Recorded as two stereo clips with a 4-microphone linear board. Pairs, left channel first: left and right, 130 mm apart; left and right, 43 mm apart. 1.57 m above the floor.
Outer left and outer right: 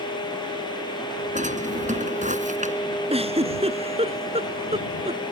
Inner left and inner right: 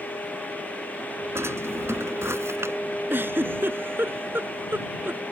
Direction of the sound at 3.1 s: 50° right (ahead or behind).